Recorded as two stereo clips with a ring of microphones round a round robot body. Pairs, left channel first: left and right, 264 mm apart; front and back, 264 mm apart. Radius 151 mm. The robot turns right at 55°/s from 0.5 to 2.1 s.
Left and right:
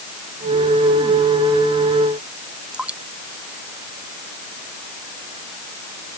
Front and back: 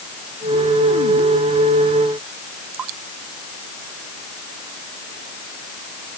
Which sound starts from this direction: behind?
Dripping, at 2.7 s.